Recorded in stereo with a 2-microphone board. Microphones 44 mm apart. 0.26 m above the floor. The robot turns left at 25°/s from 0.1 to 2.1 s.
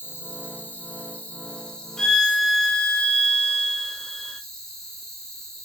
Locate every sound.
0.0 s an insect: 55° left, 1.1 m; by 5.7 s 5° left, 1.1 m
2.0 s a violin: 10° left (ahead or behind), 0.6 m